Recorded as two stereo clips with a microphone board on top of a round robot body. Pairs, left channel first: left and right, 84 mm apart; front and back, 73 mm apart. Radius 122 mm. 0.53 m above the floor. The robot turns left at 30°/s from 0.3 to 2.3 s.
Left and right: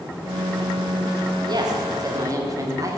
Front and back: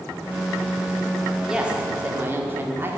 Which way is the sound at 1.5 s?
100° right.